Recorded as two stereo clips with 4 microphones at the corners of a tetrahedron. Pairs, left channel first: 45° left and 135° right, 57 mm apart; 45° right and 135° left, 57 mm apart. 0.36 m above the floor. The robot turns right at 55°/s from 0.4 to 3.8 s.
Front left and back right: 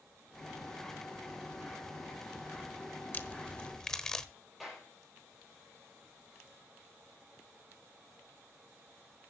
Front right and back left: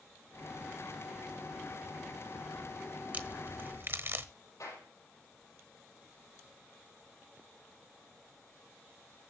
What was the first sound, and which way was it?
A crack, 85° left.